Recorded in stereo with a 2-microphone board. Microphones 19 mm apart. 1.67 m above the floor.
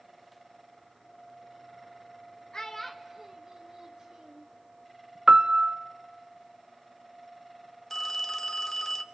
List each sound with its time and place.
2.5 s a child speaking: 30° left (ahead or behind), 0.9 m; by 4.5 s 50° right (ahead or behind), 2.5 m
5.3 s a piano: 70° right (ahead or behind), 0.7 m
7.9 s a phone ringing: 15° left (ahead or behind), 1.0 m